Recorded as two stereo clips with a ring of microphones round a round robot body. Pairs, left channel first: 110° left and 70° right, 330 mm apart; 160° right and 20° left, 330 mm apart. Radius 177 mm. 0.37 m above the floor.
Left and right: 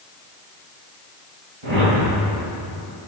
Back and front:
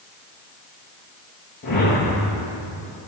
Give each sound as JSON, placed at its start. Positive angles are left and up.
{"t": 1.6, "sound": "a whoosh", "azimuth_deg": -95, "distance_m": 8.0}